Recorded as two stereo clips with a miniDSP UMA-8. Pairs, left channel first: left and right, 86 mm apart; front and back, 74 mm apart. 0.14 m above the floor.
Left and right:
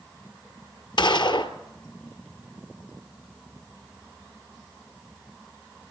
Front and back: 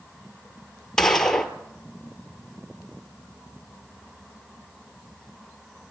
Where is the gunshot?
85° left, 1.5 m.